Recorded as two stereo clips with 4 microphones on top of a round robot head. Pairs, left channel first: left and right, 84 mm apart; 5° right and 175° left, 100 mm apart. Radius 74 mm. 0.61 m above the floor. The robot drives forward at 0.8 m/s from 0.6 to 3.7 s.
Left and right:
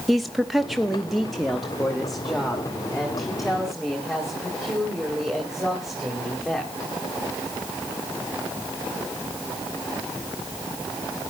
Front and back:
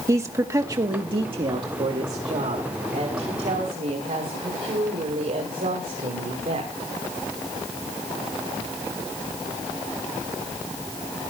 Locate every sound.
0.1 s a woman speaking: straight behind, 0.8 m